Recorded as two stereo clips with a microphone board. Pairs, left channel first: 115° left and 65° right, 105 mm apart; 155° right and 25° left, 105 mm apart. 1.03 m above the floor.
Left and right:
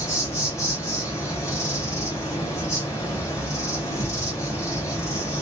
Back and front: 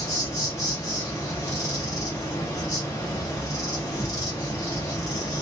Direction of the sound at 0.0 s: 160° left.